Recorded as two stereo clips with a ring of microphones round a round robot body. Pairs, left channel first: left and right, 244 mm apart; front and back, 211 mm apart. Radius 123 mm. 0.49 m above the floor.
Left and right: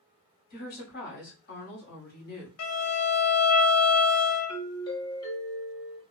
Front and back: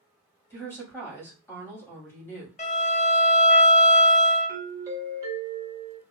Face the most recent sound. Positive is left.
turn(degrees=130)